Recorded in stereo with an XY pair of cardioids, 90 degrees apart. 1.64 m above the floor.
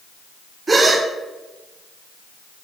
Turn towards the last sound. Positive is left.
turn(degrees=-30)